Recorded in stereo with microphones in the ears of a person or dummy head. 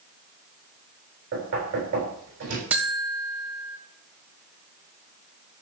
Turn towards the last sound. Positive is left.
turn(degrees=-5)  # may be behind; listen again after turning